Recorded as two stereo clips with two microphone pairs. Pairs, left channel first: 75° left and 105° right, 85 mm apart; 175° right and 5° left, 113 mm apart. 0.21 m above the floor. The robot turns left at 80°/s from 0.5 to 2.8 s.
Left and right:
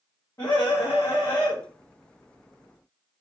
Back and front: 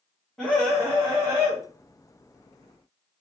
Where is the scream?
100° left, 1.8 m; by 1.6 s 15° left, 1.8 m.